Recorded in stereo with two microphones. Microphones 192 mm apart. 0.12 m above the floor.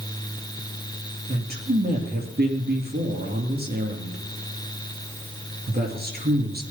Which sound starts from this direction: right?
A man speaking, at 1.3 s.